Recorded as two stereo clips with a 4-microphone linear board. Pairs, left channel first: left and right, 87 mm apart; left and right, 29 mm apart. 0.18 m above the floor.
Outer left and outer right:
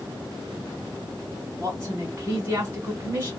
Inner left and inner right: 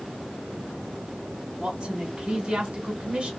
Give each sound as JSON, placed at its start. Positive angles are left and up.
{"t": 1.6, "sound": "a woman speaking", "side_deg": -25, "distance_m": 1.3}